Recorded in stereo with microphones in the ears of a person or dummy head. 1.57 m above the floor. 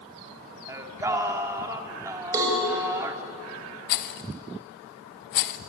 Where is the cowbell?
20° right (ahead or behind), 7 m.